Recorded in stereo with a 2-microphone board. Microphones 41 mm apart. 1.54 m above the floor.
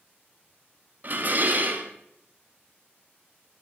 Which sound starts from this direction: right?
Dishes clattering, at 1.0 s.